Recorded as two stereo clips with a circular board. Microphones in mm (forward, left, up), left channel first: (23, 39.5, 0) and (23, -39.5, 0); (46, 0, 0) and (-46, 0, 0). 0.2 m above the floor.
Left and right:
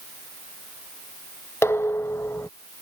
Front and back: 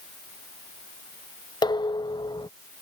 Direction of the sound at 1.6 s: 35° left.